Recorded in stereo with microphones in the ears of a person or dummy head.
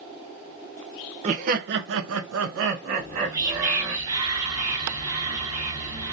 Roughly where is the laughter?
Right.